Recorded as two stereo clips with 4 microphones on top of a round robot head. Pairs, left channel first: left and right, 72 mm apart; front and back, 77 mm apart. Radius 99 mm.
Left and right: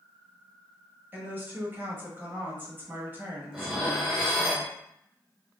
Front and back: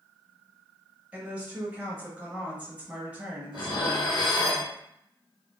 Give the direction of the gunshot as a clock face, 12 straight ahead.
No gunshot in this recording.